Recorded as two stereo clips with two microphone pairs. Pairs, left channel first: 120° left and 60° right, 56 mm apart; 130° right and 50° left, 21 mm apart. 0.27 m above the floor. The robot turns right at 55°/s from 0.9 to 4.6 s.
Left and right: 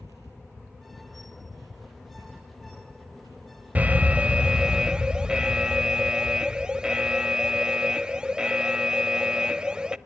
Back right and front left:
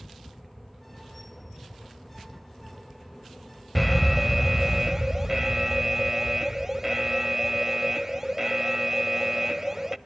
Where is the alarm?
45° right, 0.6 m; by 10.0 s 5° left, 0.6 m.